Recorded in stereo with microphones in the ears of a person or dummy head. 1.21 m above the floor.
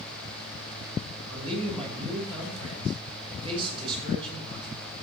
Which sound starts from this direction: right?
A man speaking, at 1.3 s.